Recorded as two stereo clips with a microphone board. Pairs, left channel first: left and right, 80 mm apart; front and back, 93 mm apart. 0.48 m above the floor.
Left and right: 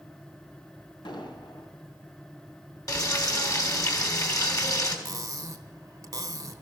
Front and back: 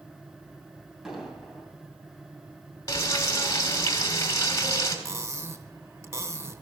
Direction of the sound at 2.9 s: 50° left.